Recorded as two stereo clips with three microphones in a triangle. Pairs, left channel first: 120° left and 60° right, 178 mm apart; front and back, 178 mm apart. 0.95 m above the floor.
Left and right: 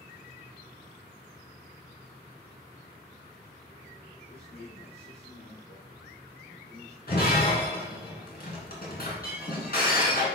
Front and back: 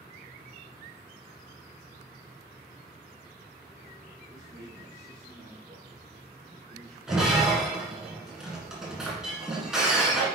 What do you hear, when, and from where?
4.3 s a man speaking: 115° left, 3 m
7.1 s breaking glass: 95° left, 2.5 m